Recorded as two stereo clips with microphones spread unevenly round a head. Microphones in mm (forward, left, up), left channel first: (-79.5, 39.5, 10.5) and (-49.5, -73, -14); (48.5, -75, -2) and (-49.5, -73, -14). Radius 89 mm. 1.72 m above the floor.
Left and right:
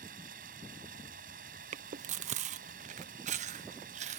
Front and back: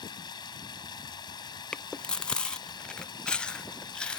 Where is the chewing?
75° right.